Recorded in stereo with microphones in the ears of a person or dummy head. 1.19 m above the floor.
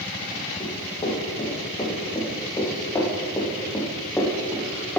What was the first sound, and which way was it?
Running footsteps, 25° left (ahead or behind).